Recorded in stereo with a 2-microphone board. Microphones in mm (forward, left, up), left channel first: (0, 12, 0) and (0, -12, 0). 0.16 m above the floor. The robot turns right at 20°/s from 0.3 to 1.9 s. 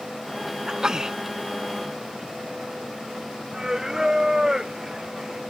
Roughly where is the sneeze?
Right.